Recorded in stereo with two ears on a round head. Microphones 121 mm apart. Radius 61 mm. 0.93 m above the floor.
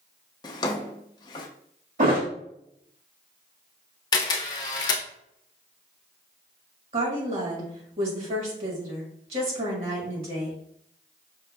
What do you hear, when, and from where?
0.4 s a drawer: 30° left (ahead or behind), 0.5 m
2.0 s a thud: 70° right (ahead or behind), 1.6 m
4.1 s a camera shutter: 30° left (ahead or behind), 0.8 m
6.9 s a woman speaking: 50° right (ahead or behind), 1.8 m